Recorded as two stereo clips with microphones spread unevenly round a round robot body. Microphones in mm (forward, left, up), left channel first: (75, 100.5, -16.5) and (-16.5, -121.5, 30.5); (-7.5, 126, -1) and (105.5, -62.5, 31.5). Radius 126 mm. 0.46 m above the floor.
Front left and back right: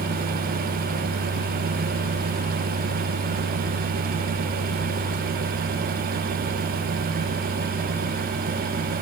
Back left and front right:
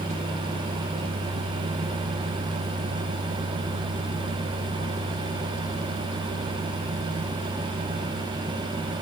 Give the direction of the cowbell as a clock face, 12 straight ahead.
I don't hear a cowbell.